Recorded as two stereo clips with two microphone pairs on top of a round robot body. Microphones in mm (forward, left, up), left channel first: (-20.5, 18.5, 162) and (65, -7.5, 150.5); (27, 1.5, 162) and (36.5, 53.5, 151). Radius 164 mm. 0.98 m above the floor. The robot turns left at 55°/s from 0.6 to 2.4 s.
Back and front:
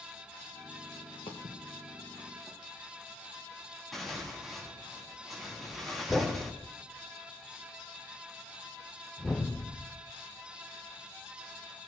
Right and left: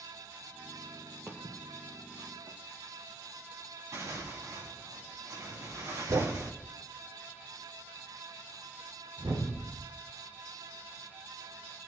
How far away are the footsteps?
About 1.5 m.